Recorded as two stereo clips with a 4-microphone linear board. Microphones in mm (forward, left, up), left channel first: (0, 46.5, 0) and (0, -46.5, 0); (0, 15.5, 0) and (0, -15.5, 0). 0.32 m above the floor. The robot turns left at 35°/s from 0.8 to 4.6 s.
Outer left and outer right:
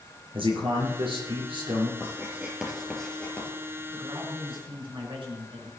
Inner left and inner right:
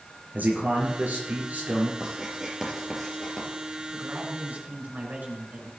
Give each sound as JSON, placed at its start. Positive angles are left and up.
{"t": 0.3, "sound": "a man speaking", "azimuth_deg": -85, "distance_m": 4.5}
{"t": 2.0, "sound": "writing", "side_deg": -30, "distance_m": 4.0}
{"t": 3.9, "sound": "a man speaking", "side_deg": -60, "distance_m": 4.5}